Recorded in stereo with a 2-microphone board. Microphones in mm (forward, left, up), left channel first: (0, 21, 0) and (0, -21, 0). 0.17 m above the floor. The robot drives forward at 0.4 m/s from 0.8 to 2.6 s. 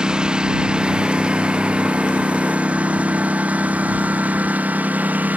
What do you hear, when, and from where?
0.0 s a lawn mower: 20° right (ahead or behind); by 5.4 s 45° right (ahead or behind)